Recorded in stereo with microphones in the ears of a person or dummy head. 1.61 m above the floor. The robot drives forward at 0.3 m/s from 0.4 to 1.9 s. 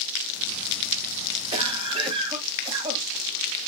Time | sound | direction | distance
1.5 | a cough | 30° right (ahead or behind) | 1.7 m